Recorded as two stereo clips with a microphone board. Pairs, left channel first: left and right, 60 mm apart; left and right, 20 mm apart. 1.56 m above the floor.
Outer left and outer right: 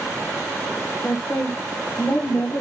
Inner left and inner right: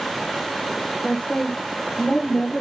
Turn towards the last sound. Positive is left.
turn(degrees=60)  # may be behind; listen again after turning